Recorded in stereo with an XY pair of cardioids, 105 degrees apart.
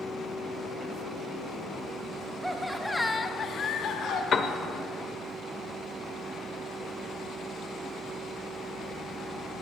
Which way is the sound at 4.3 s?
45° left.